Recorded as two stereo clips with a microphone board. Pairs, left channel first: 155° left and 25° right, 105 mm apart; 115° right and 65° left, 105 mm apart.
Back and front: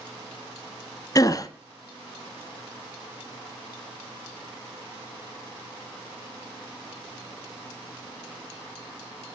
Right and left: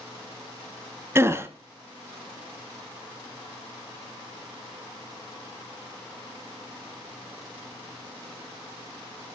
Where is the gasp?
120° left, 1.4 m.